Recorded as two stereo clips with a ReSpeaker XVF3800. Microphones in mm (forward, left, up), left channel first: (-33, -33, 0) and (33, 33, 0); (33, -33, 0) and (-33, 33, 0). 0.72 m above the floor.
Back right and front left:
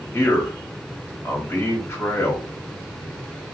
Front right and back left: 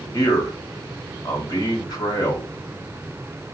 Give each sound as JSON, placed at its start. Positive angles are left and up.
{"t": 0.1, "sound": "a man speaking", "azimuth_deg": -80, "distance_m": 1.5}